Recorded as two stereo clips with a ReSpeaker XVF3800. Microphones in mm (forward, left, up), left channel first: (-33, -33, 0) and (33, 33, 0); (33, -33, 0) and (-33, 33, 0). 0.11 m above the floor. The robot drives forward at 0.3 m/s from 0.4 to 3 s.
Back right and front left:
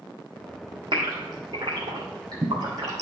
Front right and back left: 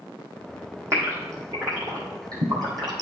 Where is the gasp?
80° left, 2.5 m; by 3.0 s 95° left, 2.5 m.